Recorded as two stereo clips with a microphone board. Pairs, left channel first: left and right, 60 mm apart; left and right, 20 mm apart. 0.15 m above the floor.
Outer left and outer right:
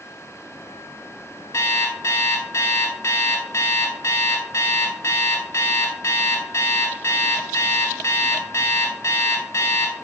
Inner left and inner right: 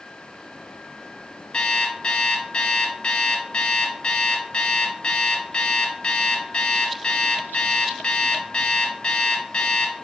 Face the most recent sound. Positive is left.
turn(degrees=50)  # may be behind; listen again after turning